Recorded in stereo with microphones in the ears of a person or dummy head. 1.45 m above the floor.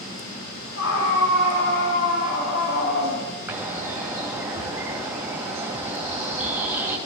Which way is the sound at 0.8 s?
80° left.